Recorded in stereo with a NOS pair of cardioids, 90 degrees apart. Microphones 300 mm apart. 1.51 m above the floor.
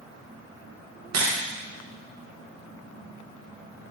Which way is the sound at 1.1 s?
55° right.